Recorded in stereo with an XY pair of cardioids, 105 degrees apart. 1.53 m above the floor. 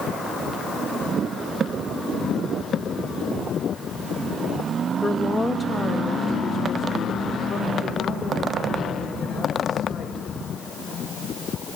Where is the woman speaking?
10° left, 1.8 m; by 10.2 s 45° left, 7 m.